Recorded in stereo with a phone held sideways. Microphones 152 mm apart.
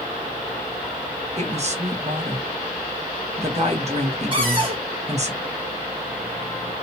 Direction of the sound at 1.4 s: 50° right (ahead or behind).